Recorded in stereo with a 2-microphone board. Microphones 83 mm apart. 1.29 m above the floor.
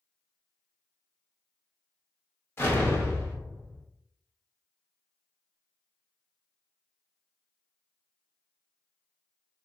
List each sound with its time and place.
2.6 s an explosion: 30° left (ahead or behind), 0.7 m